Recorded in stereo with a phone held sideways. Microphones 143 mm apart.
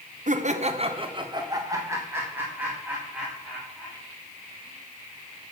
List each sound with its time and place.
0.3 s laughter: 60° right (ahead or behind), 0.7 m; by 4.0 s 5° right (ahead or behind), 2.5 m